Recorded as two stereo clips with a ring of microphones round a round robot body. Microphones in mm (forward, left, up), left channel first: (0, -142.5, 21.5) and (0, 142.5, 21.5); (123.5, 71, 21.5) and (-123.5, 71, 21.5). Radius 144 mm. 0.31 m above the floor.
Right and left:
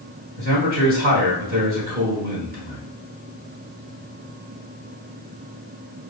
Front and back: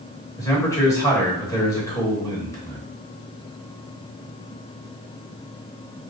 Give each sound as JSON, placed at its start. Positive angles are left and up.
{"t": 0.4, "sound": "a man speaking", "azimuth_deg": 70, "distance_m": 1.3}